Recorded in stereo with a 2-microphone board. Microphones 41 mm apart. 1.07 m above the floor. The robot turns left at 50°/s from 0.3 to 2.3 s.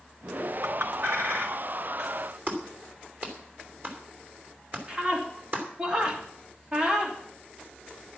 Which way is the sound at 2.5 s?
45° right (ahead or behind).